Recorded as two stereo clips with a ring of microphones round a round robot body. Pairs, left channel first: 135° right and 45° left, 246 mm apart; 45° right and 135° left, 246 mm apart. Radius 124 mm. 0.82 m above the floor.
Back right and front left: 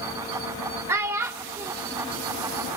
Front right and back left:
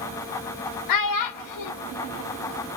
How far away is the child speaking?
About 0.9 m.